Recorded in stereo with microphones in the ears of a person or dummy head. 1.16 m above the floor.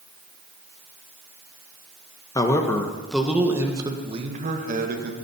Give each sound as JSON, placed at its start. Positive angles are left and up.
{"t": 2.4, "sound": "a man speaking", "side_deg": 20, "distance_m": 1.3}